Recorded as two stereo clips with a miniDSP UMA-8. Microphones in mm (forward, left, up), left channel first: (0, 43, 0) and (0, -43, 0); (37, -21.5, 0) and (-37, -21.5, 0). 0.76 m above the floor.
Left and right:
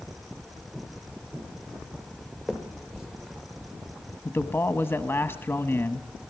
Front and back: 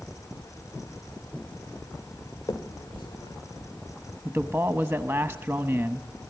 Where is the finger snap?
5° right, 1.7 m.